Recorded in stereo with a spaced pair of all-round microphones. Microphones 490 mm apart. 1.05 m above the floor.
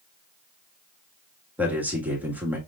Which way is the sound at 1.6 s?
5° right (ahead or behind).